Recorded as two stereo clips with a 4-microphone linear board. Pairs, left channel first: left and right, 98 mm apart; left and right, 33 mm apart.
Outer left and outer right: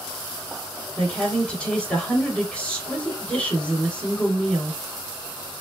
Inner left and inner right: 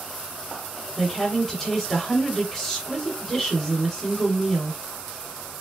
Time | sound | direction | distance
1.0 | a woman speaking | 10° left (ahead or behind) | 1.7 m